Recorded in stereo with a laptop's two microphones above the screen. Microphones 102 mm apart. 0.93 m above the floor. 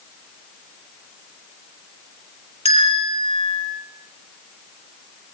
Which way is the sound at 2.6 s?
75° left (ahead or behind).